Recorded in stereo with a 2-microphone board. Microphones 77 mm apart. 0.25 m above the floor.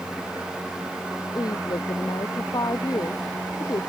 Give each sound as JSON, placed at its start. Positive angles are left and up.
{"t": 1.4, "sound": "a woman speaking", "side_deg": 55}